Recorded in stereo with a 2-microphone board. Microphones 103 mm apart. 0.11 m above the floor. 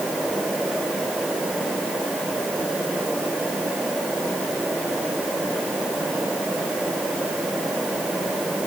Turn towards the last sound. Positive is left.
No sound to turn to.